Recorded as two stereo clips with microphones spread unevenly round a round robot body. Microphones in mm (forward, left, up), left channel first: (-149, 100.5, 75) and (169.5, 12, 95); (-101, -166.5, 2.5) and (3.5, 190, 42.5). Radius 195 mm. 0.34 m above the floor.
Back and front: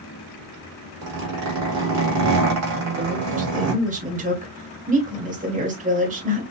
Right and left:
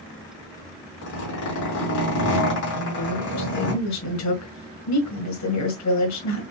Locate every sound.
1.0 s a zipper: 55° right, 3 m
2.7 s a woman speaking: 80° right, 1.9 m